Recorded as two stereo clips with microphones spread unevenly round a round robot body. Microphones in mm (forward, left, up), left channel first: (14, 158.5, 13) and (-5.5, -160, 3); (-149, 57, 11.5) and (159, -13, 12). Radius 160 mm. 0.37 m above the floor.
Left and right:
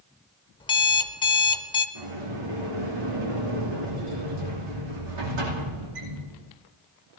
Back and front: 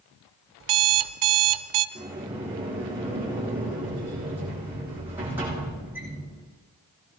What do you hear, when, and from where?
0.6 s an alarm clock: 15° left, 0.7 m
1.9 s a sliding door: 95° right, 8 m